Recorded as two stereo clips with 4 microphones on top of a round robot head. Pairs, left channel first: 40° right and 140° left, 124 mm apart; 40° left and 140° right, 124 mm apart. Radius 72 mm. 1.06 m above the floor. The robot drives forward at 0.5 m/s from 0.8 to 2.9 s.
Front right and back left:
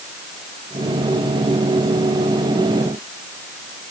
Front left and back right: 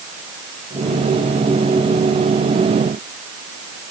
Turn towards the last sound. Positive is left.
No sound to turn to.